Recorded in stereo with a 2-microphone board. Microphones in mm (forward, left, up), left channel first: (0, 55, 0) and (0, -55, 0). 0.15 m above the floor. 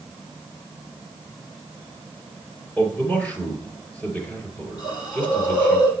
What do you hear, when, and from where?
2.8 s a man speaking: 15° left (ahead or behind), 3 m
4.8 s a hiss: 40° left (ahead or behind), 5.5 m